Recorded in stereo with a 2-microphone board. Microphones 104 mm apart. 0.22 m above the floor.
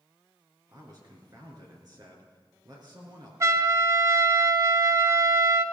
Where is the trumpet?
30° right (ahead or behind), 0.6 m.